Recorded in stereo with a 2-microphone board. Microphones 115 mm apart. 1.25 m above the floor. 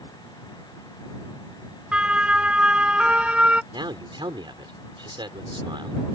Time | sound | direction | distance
1.9 | a siren | 10° right (ahead or behind) | ?
3.7 | a man speaking | 40° right (ahead or behind) | ?